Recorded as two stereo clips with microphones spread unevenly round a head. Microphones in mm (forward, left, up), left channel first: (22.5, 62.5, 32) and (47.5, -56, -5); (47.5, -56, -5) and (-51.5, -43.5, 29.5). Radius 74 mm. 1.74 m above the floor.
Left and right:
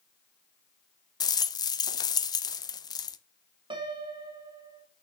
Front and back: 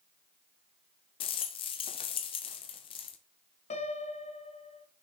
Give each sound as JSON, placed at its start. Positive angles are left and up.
{"t": 1.2, "sound": "a rattle", "azimuth_deg": 40, "distance_m": 0.7}
{"t": 3.7, "sound": "a piano", "azimuth_deg": -25, "distance_m": 1.6}